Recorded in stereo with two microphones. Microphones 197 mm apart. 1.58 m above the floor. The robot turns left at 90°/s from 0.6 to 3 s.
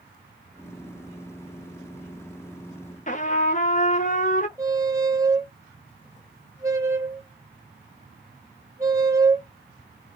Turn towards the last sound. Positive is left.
turn(degrees=-15)  # may be behind; listen again after turning